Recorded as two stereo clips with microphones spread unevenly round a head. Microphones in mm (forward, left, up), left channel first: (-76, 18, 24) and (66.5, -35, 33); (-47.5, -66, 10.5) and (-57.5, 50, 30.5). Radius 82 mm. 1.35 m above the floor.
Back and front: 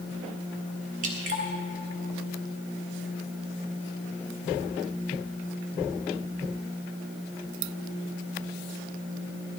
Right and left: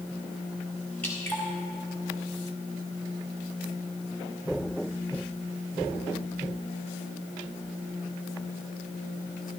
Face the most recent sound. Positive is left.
turn(degrees=0)